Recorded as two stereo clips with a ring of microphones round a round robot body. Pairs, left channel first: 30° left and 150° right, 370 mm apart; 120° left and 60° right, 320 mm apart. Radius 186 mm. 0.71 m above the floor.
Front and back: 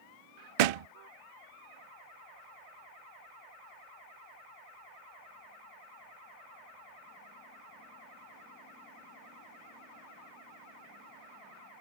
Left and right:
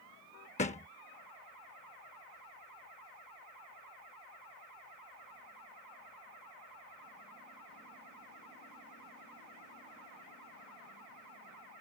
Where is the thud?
165° right.